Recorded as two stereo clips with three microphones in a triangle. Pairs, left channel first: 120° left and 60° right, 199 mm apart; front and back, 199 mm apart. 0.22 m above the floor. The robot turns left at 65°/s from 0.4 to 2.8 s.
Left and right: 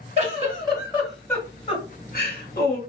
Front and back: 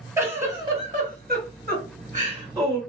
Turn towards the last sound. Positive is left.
turn(degrees=95)